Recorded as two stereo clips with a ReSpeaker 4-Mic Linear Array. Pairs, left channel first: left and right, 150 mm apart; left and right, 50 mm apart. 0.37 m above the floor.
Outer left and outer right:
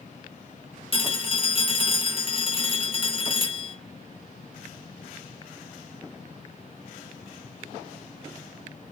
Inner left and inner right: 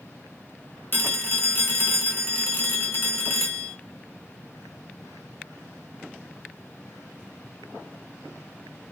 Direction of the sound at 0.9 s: 40° left (ahead or behind).